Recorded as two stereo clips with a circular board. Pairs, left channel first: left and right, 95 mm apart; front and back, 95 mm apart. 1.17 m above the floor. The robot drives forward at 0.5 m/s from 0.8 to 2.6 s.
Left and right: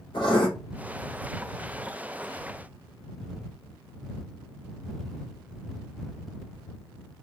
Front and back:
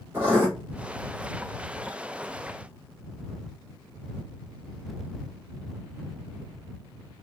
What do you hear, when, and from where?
0.1 s writing: 115° left, 3 m